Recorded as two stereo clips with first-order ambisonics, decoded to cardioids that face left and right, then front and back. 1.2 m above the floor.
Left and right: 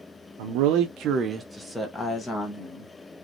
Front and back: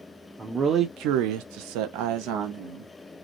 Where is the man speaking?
100° right, 0.6 m; by 2.9 s 155° left, 1.3 m.